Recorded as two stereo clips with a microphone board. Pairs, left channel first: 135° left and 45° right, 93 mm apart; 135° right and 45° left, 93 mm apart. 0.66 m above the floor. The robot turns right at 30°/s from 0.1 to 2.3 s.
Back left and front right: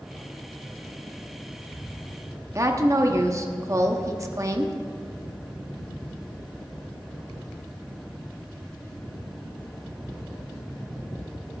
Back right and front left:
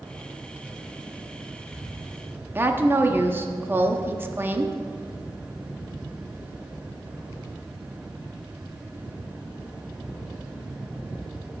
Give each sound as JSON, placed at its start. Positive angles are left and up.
{"t": 2.5, "sound": "a woman speaking", "azimuth_deg": -10, "distance_m": 0.9}